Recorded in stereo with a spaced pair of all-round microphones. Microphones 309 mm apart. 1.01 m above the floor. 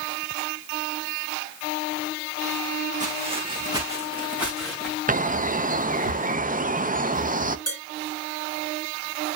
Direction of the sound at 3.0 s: 25° right (ahead or behind).